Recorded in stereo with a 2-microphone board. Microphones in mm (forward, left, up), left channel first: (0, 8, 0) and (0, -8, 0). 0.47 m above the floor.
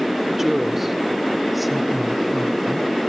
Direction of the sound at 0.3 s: 25° right (ahead or behind).